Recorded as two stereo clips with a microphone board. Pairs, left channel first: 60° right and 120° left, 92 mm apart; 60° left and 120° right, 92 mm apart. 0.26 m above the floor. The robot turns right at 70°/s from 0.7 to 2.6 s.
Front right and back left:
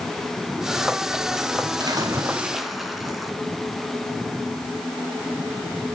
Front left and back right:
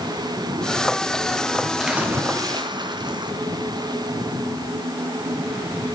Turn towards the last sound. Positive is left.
turn(degrees=-150)